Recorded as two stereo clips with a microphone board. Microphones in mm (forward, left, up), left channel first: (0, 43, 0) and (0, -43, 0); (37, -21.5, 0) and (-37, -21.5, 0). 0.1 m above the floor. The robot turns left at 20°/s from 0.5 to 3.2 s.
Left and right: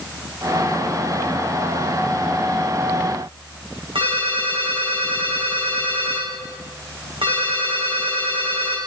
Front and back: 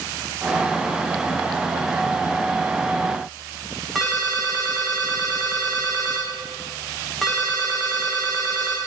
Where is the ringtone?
90° right, 3 m.